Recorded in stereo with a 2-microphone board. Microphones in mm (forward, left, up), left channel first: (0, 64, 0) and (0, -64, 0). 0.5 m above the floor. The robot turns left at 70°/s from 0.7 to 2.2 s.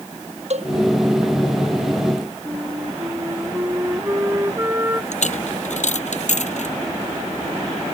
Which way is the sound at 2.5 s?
20° right (ahead or behind).